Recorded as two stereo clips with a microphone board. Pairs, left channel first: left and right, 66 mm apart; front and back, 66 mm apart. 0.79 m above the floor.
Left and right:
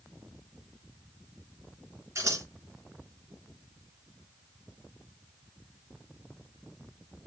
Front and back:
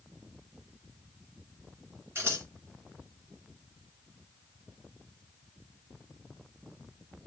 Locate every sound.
2.1 s scissors: 130° right, 2.5 m